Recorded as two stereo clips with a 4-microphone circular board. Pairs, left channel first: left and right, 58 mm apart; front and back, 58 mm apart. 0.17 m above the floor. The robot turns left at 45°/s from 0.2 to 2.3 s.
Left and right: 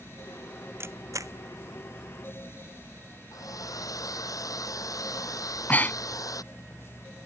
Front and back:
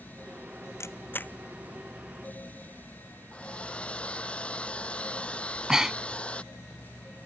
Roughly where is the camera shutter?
Ahead right.